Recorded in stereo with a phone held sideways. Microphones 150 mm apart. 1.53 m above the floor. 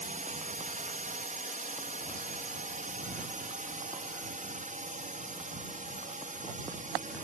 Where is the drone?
55° right (ahead or behind).